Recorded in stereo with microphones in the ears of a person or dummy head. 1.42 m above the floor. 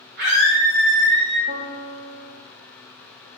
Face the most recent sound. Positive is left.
turn(degrees=-35)  # may be behind; listen again after turning